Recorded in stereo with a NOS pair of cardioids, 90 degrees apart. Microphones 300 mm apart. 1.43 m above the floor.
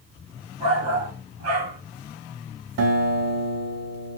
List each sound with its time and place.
0.6 s a shout: 70° right, 3.5 m
2.8 s a guitar: 60° right, 1.7 m